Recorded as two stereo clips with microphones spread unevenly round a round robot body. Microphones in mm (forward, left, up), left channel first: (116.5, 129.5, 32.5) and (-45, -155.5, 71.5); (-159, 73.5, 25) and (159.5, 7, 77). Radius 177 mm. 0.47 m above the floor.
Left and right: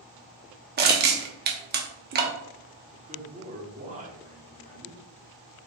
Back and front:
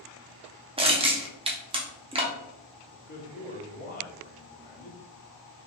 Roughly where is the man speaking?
Behind.